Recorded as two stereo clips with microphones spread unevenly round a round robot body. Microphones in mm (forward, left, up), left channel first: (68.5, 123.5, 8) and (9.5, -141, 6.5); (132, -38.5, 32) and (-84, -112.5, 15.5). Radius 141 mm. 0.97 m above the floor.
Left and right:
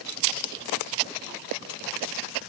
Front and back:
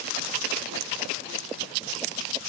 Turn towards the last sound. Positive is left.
No sound to turn to.